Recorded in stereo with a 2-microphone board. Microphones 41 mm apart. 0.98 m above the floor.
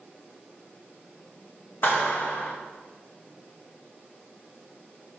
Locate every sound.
1.8 s a clap: 55° left (ahead or behind), 1.0 m